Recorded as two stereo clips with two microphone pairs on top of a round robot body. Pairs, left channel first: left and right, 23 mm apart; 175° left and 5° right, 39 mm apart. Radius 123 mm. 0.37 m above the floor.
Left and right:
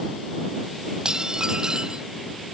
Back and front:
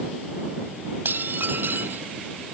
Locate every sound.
1.1 s dishes clattering: 35° right